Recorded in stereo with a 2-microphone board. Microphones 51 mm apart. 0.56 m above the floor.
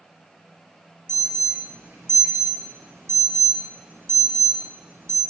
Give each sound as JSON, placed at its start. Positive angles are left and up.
{"t": 1.1, "sound": "an alarm", "side_deg": -60, "distance_m": 5.0}